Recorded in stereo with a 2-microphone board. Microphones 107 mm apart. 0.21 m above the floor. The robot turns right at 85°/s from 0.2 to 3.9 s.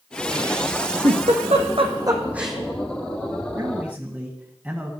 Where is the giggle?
55° right (ahead or behind), 2.0 m; by 2.6 s 5° left (ahead or behind), 2.0 m.